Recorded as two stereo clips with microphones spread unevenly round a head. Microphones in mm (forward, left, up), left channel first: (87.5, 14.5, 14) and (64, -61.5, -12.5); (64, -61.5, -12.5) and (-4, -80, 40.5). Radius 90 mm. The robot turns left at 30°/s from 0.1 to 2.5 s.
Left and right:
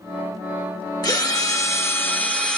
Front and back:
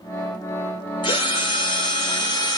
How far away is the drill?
About 2.5 m.